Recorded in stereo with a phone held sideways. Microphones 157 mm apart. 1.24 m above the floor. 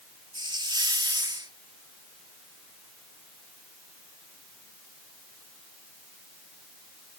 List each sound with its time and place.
0.3 s a hiss: 30° right (ahead or behind)